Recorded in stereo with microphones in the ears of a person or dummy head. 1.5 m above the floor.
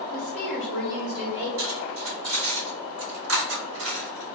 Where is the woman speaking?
10° left (ahead or behind), 1.0 m; by 1.5 s 30° right (ahead or behind), 1.9 m.